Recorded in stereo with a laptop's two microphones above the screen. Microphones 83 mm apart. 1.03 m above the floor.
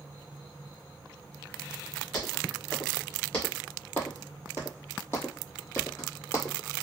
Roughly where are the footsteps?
Centre.